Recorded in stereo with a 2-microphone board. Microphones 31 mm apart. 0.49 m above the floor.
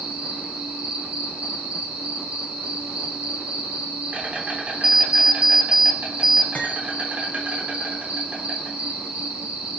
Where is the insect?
55° right (ahead or behind), 3.5 m.